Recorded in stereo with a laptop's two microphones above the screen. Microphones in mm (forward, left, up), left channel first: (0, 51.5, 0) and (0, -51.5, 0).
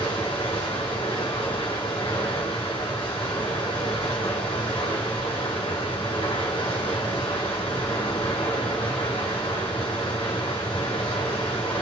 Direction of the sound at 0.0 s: 60° left (ahead or behind).